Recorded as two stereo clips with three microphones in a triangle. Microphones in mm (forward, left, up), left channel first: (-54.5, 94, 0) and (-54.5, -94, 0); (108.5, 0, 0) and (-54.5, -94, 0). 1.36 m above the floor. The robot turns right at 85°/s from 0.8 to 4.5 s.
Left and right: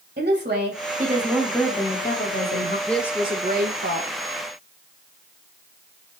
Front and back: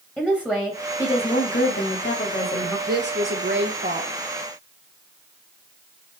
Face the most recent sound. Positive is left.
turn(degrees=-50)